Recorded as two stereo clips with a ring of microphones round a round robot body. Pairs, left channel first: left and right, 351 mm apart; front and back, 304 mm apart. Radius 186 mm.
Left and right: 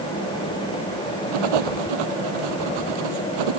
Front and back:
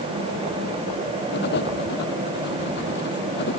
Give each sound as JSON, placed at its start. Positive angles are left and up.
{"t": 1.3, "sound": "writing", "azimuth_deg": -65}